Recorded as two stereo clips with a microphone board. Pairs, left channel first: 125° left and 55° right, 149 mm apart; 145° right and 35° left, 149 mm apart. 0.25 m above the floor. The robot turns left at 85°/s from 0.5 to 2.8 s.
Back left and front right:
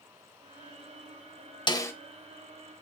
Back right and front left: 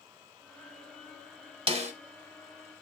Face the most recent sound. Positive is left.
turn(degrees=-20)